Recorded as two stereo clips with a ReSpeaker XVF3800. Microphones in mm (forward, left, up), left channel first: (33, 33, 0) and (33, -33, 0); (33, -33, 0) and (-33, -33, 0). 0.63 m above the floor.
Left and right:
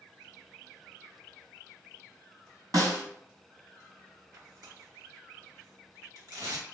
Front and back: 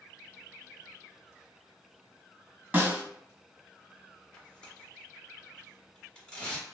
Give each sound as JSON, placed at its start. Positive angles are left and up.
{"t": 2.7, "sound": "a snare drum", "azimuth_deg": -115, "distance_m": 1.6}
{"t": 4.3, "sound": "tearing paper", "azimuth_deg": -75, "distance_m": 1.1}